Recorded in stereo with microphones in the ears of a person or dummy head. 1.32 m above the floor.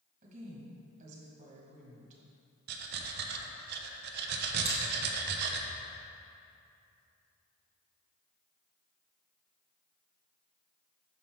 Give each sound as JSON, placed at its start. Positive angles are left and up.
{"t": 0.2, "sound": "a woman speaking", "side_deg": -45, "distance_m": 1.6}
{"t": 2.7, "sound": "breathing", "side_deg": -60, "distance_m": 0.6}
{"t": 4.7, "sound": "chewing", "side_deg": -35, "distance_m": 1.1}